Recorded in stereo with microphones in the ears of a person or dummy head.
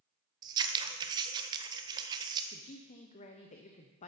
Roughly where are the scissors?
Right.